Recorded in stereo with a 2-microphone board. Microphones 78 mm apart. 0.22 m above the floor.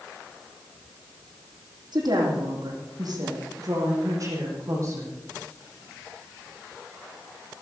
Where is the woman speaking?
60° right (ahead or behind), 7.5 m; by 5.2 s 35° right (ahead or behind), 8.5 m.